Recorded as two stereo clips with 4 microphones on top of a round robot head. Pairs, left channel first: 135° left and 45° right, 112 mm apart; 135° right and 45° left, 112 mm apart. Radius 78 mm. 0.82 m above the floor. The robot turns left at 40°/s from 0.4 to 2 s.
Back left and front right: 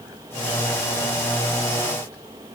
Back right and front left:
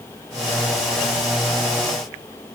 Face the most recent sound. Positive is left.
No sound to turn to.